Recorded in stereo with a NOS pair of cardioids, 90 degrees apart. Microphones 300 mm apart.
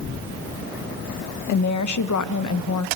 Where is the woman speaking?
70° left, 0.8 m.